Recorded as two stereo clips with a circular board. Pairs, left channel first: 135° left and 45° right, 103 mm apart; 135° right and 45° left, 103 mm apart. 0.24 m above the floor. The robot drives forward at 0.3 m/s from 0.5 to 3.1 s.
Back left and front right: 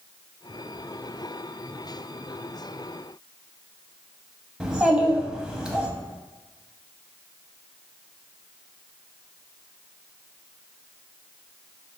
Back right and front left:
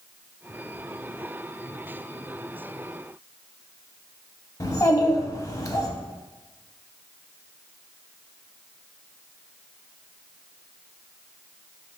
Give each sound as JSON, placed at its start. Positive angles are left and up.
{"t": 4.6, "sound": "a child speaking", "azimuth_deg": -120, "distance_m": 0.6}